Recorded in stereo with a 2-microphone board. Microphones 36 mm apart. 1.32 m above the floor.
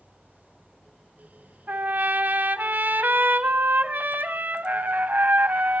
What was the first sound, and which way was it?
A trumpet, 55° right (ahead or behind).